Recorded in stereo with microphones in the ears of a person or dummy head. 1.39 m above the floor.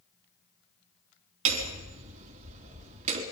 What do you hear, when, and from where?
1.4 s hammering: 35° right (ahead or behind), 3.5 m